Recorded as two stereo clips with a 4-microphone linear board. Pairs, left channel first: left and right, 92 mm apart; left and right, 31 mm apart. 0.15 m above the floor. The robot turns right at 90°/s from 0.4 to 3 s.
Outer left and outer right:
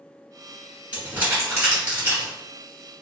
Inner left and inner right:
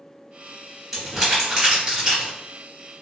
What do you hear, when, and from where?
0.9 s crumpling: 15° right (ahead or behind), 1.6 m